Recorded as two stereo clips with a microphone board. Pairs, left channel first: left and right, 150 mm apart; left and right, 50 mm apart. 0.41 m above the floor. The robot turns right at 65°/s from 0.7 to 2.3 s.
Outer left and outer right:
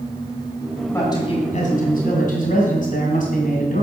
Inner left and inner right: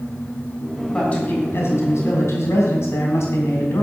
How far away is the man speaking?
About 3 m.